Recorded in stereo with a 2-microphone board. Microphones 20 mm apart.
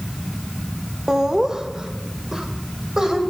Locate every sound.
1.1 s laughter: 30° right (ahead or behind), 1.7 m